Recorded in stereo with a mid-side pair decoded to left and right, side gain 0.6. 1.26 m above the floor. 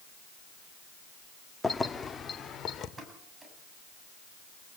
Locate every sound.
1.6 s keys jangling: 15° left, 1.8 m; by 2.9 s 40° left, 3 m
3.0 s a pop: 20° right, 8 m